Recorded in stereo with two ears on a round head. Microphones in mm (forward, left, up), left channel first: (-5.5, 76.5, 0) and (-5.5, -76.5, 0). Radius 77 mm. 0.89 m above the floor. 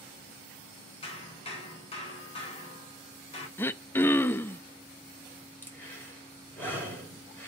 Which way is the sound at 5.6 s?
15° left (ahead or behind).